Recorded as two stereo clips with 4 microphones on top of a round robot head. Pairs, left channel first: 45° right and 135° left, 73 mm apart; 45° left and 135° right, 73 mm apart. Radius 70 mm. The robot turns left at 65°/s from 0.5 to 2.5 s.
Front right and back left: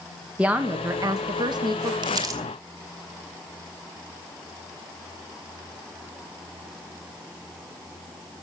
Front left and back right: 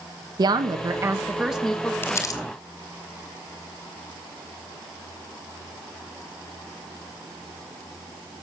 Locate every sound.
0.4 s a woman speaking: 150° right, 1.6 m; by 1.9 s 115° left, 1.6 m
2.0 s crumpling: 110° left, 2.5 m; by 2.4 s 85° left, 2.5 m